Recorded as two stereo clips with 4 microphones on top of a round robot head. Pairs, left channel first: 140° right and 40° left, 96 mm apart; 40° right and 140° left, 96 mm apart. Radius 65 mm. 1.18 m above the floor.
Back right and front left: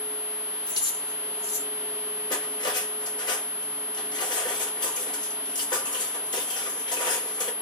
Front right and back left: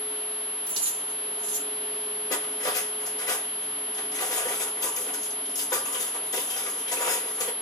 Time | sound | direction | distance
0.7 | keys jangling | 175° left | 2 m
2.3 | cutlery clinking | 95° right | 1.3 m